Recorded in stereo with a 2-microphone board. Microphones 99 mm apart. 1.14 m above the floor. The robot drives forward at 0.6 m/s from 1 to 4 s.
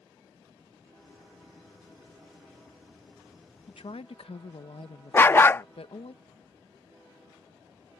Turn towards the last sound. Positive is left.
turn(degrees=25)  # may be behind; listen again after turning